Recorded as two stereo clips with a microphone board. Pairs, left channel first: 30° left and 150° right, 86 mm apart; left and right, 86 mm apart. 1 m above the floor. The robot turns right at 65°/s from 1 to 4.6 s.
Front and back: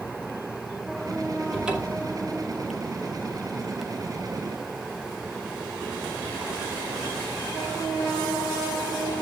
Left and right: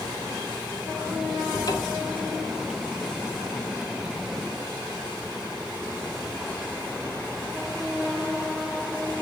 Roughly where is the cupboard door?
Behind left.